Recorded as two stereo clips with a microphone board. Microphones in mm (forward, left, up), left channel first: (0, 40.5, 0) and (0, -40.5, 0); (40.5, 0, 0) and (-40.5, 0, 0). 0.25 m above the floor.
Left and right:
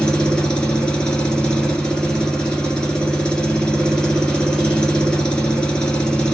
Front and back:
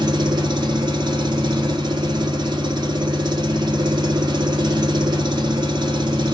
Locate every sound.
0.0 s an engine running: 170° left, 0.9 m